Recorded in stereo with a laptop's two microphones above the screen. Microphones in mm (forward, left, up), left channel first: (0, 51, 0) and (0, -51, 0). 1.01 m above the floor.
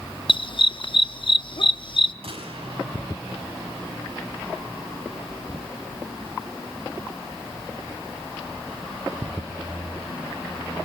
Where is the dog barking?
55° left (ahead or behind), 0.7 m.